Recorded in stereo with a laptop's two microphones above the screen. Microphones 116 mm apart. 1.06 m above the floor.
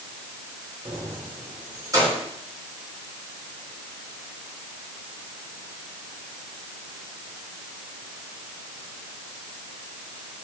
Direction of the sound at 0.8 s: 45° right (ahead or behind).